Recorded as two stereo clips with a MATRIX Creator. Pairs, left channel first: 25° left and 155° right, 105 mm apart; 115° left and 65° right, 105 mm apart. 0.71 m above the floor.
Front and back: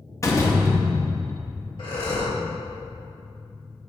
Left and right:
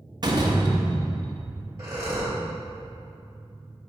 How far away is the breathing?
About 2 m.